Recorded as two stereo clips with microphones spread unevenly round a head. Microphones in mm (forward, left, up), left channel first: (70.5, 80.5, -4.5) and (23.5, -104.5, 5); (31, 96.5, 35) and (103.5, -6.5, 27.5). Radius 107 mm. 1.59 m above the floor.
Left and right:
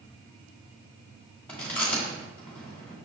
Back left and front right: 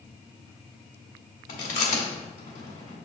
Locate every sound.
1.5 s chewing: 160° left, 1.6 m